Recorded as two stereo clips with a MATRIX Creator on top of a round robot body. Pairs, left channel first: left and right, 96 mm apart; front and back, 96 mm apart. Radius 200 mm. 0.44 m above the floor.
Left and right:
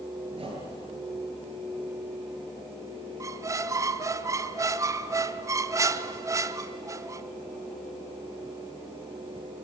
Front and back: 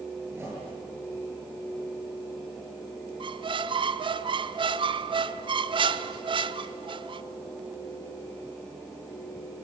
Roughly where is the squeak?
Behind right.